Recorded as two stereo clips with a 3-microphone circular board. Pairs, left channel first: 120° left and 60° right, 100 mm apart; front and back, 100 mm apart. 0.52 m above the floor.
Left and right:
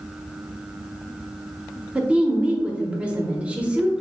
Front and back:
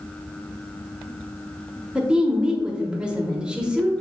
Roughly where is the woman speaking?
Behind right.